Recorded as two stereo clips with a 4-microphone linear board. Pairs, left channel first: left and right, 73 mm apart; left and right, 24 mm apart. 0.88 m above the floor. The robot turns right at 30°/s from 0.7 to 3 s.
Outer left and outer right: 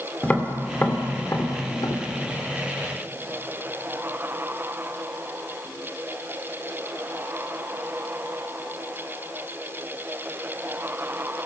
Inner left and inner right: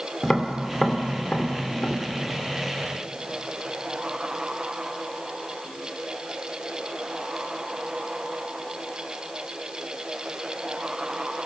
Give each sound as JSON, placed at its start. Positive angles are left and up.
{"t": 0.2, "sound": "tapping", "side_deg": 20, "distance_m": 2.0}